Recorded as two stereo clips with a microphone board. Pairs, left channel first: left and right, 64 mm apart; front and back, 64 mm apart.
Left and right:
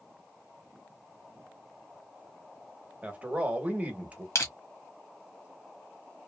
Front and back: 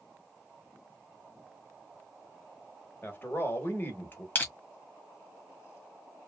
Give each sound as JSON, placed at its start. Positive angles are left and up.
{"t": 3.0, "sound": "a man speaking", "azimuth_deg": -35, "distance_m": 1.1}
{"t": 4.3, "sound": "crushing", "azimuth_deg": 60, "distance_m": 1.3}